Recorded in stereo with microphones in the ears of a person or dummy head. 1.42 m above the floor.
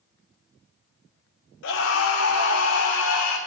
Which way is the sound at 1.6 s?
60° left (ahead or behind).